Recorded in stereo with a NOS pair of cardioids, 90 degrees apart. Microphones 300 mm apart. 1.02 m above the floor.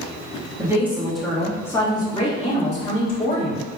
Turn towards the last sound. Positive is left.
turn(degrees=30)